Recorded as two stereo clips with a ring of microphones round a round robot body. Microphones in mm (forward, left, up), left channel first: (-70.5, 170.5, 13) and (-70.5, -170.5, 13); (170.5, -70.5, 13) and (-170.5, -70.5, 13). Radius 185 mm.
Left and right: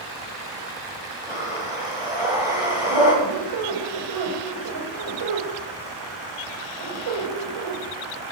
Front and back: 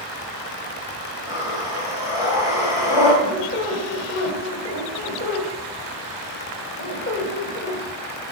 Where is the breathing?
5° right, 3.5 m.